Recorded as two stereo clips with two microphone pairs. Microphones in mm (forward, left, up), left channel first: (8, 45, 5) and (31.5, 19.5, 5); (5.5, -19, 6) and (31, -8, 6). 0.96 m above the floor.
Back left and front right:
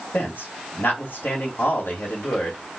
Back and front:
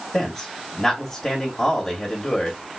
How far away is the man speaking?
About 1.9 m.